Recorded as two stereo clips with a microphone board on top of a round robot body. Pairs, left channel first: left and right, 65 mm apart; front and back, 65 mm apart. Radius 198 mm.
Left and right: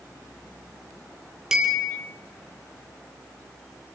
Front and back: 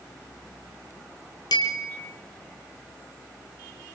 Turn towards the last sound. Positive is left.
turn(degrees=-10)